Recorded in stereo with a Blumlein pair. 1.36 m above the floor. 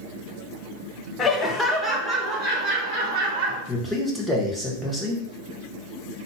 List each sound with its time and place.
1.2 s laughter: 25° left, 0.8 m; by 3.6 s 30° right, 2 m
3.7 s a man speaking: straight ahead, 1.4 m